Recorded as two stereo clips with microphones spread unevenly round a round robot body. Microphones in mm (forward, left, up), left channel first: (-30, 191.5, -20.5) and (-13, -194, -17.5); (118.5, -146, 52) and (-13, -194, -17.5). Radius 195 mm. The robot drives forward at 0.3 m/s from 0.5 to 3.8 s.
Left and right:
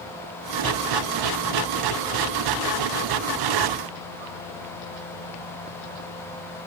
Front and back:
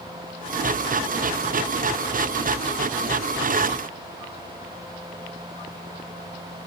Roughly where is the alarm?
I don't hear an alarm.